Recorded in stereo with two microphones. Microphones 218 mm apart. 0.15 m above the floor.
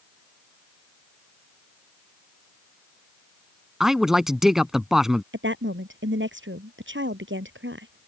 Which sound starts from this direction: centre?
A man speaking, at 3.8 s.